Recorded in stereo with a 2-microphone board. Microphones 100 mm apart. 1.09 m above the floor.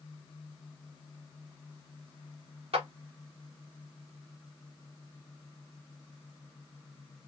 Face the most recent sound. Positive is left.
turn(degrees=-75)  # may be behind; listen again after turning